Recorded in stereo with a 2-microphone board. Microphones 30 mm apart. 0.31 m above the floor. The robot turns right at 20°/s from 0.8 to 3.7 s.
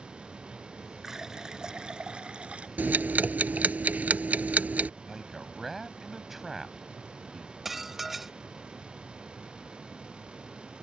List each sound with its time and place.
1.0 s a running tap: 160° right; by 2.7 s 130° right
2.8 s ticking: 80° right; by 4.9 s 60° right (ahead or behind)
5.0 s a man speaking: 5° right (ahead or behind)
7.7 s dishes clattering: 10° right (ahead or behind)